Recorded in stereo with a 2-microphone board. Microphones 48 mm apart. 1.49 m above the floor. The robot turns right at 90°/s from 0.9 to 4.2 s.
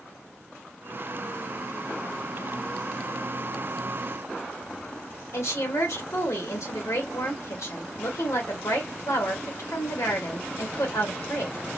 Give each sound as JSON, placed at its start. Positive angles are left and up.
{"t": 5.3, "sound": "a woman speaking", "side_deg": 75, "distance_m": 2.5}